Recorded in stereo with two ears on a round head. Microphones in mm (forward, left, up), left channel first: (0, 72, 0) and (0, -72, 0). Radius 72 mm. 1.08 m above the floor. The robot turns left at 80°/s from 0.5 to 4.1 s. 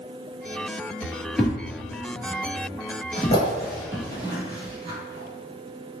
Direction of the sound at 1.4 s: Centre (ahead or behind).